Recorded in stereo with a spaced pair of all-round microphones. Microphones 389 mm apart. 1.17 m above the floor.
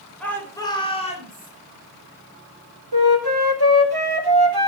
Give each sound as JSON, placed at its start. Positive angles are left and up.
{"t": 0.2, "sound": "a shout", "side_deg": 5, "distance_m": 4.0}
{"t": 2.9, "sound": "a flute", "side_deg": -70, "distance_m": 2.0}